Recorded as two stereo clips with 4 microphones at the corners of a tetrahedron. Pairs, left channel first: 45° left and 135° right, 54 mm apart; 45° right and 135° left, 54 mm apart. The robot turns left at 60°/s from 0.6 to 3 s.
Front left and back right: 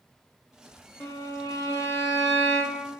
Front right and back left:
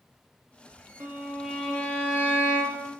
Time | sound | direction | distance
1.0 | a violin | 80° left | 0.6 m